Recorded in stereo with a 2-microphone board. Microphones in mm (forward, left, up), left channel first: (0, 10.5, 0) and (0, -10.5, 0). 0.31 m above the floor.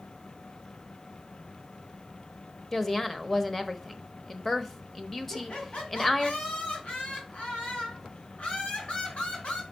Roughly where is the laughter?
Left.